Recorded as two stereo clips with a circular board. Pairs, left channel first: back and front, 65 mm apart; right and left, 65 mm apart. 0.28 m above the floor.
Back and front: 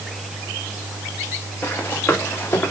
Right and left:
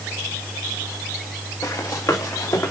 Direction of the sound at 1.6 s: 115° right.